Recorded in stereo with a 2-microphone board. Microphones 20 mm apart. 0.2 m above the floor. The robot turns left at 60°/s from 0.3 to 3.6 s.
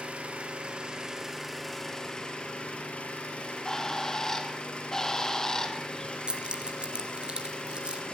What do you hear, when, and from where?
0.0 s an engine running: 100° right, 4.5 m; by 8.2 s 60° left, 4.5 m
3.4 s a bird: 10° left (ahead or behind), 2.0 m; by 6.2 s 25° left (ahead or behind), 2.0 m
6.3 s keys jangling: 50° right (ahead or behind), 2.5 m